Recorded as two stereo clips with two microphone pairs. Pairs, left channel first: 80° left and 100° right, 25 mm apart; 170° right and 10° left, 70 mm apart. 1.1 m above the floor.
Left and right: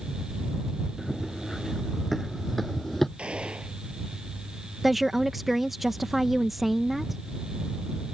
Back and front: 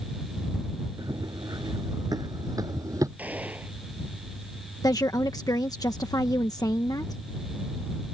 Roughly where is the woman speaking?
Behind.